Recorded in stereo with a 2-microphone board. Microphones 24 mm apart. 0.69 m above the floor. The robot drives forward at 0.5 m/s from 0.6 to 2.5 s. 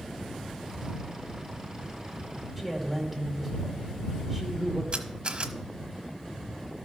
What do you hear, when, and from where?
2.6 s a man speaking: 5° right (ahead or behind), 2.5 m
4.9 s a camera shutter: 55° right (ahead or behind), 1.1 m